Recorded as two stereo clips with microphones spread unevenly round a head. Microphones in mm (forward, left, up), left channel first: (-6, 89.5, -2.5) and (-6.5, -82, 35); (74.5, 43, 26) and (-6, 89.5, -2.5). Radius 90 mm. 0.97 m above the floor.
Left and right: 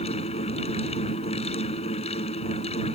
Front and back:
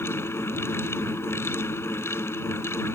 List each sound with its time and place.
0.0 s a fan: 30° left